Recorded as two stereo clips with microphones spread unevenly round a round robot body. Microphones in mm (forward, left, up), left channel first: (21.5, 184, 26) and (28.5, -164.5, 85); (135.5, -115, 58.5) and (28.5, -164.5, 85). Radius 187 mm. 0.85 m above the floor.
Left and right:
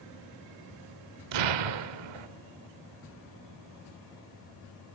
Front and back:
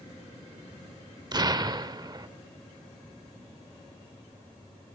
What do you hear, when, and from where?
1.3 s an explosion: 100° right, 2 m